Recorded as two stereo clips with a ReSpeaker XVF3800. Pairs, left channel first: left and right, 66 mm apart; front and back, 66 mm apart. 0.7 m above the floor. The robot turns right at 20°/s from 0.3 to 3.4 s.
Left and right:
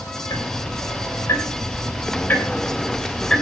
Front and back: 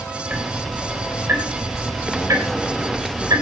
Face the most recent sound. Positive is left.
turn(degrees=170)